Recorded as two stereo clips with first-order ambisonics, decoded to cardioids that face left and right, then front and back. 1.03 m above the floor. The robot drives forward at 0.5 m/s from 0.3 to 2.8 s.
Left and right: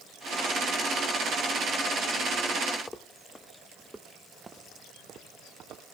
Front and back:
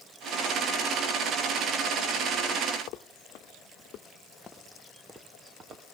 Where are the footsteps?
20° left, 1.7 m; by 5.8 s 135° right, 1.5 m.